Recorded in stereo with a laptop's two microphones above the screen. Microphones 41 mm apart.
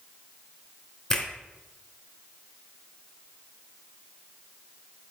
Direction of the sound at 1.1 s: 20° left (ahead or behind).